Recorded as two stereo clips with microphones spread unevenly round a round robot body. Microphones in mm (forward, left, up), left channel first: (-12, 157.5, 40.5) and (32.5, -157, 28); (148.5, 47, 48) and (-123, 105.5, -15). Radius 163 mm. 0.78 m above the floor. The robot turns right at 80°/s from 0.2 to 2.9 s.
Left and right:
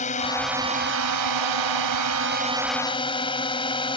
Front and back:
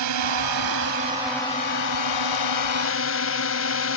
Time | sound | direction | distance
0.0 | a drone | 165° left | ?